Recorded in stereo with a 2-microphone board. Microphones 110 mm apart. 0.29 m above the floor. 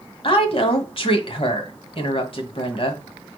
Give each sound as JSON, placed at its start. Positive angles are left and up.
{"t": 0.2, "sound": "a woman speaking", "side_deg": 55, "distance_m": 1.6}